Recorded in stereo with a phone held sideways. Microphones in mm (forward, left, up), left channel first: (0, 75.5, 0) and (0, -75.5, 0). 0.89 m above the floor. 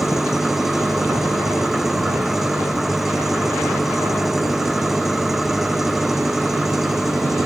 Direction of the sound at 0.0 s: Centre (ahead or behind).